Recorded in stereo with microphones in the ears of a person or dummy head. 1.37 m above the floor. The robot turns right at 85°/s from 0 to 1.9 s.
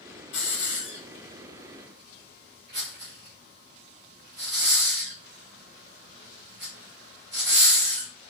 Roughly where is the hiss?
Left.